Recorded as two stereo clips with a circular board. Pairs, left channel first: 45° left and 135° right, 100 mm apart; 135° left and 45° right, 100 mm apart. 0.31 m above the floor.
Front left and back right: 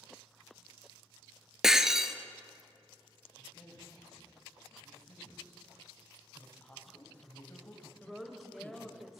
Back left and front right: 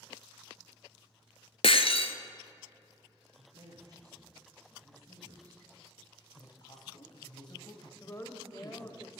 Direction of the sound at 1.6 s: 140° left.